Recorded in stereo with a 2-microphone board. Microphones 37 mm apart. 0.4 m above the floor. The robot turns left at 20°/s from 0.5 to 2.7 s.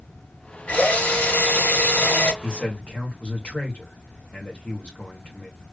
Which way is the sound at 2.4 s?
40° left (ahead or behind).